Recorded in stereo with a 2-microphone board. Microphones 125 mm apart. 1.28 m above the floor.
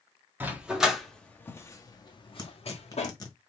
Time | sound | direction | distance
0.4 | a dog barking | 15° right (ahead or behind) | 1.1 m
2.4 | tearing paper | 30° left (ahead or behind) | 1.3 m